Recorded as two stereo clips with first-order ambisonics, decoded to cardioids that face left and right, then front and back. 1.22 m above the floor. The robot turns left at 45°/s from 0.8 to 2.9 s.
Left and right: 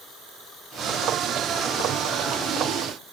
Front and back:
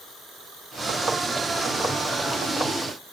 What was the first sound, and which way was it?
Only background noise.